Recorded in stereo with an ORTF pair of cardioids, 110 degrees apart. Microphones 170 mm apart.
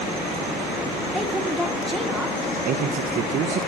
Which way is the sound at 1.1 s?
Straight ahead.